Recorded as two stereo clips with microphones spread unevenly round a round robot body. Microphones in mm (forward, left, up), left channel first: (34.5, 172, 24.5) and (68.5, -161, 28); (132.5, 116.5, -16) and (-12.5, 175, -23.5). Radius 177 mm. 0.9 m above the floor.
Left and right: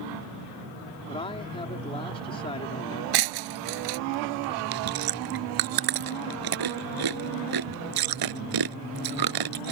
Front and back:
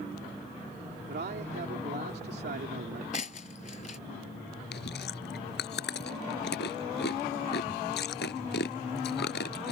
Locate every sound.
1.1 s a man speaking: 170° left
3.1 s breaking glass: 80° right
4.7 s chewing: 65° right